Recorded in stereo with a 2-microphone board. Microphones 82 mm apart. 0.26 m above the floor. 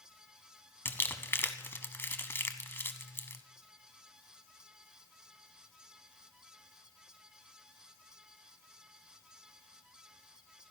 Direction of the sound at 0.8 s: 25° left (ahead or behind).